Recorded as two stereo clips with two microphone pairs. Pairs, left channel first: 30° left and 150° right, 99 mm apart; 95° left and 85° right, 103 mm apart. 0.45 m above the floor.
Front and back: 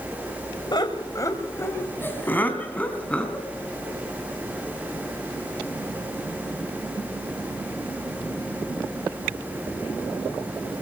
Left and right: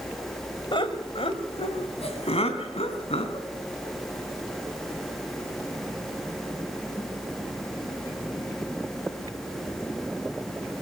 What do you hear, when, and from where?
0.7 s laughter: 65° left, 2 m; by 3.5 s 110° left, 5 m